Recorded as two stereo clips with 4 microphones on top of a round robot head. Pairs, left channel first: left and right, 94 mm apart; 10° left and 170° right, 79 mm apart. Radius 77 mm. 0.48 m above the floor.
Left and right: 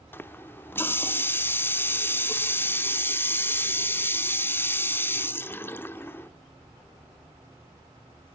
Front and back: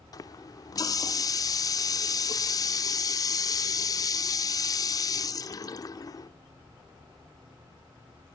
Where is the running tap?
30° left, 0.9 m.